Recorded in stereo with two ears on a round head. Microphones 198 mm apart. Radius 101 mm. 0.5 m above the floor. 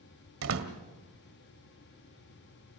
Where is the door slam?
70° right (ahead or behind), 2 m.